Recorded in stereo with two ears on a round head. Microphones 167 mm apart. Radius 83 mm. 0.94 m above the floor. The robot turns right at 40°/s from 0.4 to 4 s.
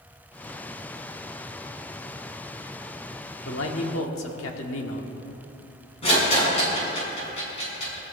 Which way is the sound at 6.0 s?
35° left (ahead or behind).